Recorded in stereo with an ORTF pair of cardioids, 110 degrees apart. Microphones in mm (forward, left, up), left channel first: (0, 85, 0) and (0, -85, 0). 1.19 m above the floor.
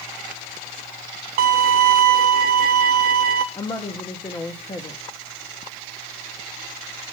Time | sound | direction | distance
1.4 | a violin | 65° right | 1.0 m
3.5 | a woman speaking | 25° left | 1.3 m